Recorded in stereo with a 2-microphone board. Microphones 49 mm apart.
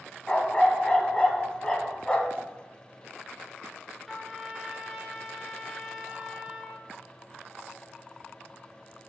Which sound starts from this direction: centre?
A trumpet, at 4.1 s.